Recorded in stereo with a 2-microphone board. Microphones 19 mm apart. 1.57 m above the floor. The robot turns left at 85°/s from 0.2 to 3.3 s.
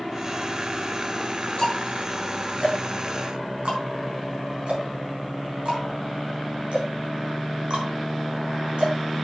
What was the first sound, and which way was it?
Ticking, 35° left (ahead or behind).